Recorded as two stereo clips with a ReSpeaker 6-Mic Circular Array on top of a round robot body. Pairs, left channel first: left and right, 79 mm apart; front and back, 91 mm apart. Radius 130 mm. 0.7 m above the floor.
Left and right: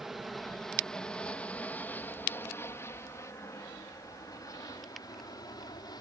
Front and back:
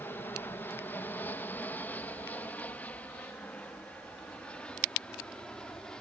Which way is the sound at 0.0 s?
10° right.